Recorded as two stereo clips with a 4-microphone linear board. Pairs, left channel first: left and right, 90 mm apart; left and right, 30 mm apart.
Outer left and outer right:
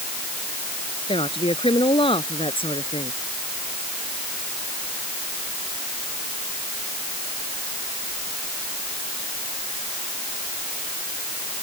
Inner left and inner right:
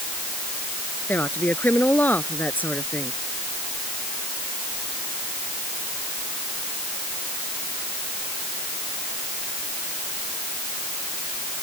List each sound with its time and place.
1.1 s a woman speaking: 80° left